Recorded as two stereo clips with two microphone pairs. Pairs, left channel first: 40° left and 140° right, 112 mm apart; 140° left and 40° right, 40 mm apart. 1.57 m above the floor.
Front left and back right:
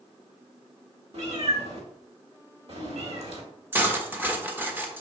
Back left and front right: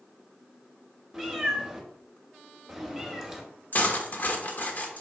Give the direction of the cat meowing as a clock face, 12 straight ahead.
4 o'clock.